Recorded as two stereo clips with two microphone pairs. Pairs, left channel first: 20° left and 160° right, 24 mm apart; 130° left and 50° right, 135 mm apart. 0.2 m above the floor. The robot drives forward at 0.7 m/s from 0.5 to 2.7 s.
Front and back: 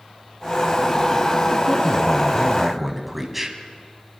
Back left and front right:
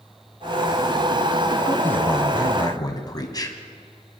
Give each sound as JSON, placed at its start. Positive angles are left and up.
{"t": 1.7, "sound": "a man speaking", "azimuth_deg": 65, "distance_m": 1.5}